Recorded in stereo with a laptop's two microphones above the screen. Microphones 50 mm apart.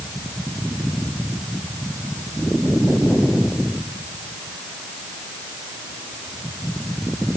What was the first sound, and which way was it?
Only background noise.